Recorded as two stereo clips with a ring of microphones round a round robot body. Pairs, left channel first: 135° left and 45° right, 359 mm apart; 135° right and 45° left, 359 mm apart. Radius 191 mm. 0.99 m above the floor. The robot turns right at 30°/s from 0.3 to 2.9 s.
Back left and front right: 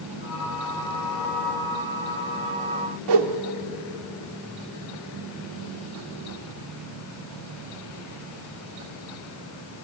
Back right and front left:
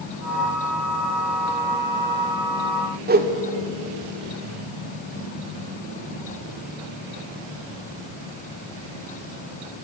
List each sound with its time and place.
3.1 s a whoosh: 20° right, 1.7 m